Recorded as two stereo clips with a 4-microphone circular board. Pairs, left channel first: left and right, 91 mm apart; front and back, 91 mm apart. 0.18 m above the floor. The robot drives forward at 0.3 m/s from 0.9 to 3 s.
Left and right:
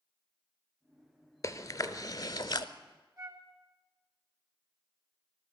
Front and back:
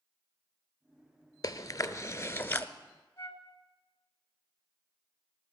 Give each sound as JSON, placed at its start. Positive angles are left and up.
{"t": 1.4, "sound": "chewing", "azimuth_deg": 45, "distance_m": 0.8}
{"t": 3.2, "sound": "a flute", "azimuth_deg": -55, "distance_m": 1.2}